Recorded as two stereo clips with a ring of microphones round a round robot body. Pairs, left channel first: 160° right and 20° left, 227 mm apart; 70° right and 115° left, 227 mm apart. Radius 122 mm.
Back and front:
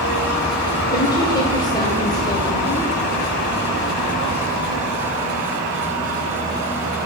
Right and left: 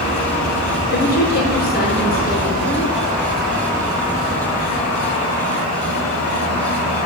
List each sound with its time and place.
0.9 s a woman speaking: 90° right, 1.5 m